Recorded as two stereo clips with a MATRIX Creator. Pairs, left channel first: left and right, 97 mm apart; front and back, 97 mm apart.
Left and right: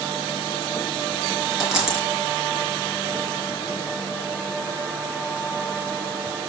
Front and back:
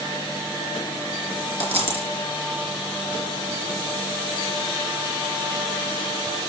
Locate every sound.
1.6 s a dropped coin: 175° right, 3.5 m